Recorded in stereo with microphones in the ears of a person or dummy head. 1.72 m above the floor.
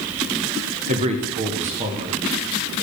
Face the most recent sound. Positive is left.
turn(degrees=-35)  # may be behind; listen again after turning